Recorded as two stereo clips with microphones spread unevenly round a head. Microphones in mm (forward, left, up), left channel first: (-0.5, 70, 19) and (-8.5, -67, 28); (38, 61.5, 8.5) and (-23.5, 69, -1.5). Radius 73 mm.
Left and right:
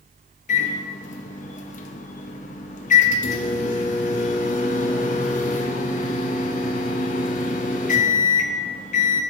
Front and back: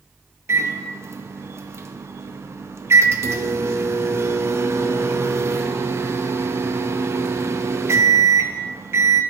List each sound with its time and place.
0.5 s a microwave: 125° left, 0.6 m